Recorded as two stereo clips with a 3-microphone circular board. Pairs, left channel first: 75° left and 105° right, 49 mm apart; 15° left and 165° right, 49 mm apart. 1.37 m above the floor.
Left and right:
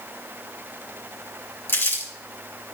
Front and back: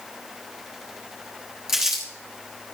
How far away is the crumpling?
About 3 m.